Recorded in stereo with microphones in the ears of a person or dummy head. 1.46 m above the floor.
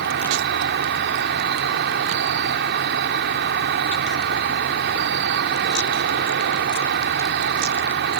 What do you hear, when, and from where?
0.0 s an insect: 55° right (ahead or behind)